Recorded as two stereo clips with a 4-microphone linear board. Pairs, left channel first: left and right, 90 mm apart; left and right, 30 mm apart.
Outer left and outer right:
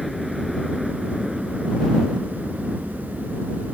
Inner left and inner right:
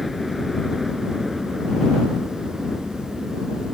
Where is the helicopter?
Centre (ahead or behind); by 3.7 s 15° right (ahead or behind).